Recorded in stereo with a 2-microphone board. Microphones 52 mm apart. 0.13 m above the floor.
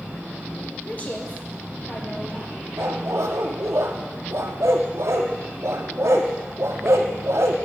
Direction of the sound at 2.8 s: 65° right (ahead or behind).